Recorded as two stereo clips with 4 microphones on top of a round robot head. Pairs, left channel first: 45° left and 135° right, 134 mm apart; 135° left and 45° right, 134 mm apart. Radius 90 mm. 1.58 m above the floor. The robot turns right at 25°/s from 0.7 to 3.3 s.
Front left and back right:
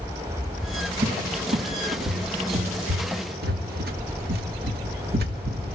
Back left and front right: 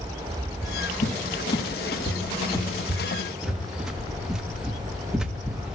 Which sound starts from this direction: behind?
A cupboard door, at 1.0 s.